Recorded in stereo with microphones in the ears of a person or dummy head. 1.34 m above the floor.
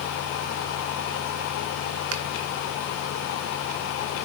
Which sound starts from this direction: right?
A finger snap, at 2.1 s.